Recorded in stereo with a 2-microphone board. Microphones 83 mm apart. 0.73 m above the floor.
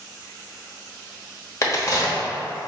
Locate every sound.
1.6 s a crack: 40° left (ahead or behind), 1.1 m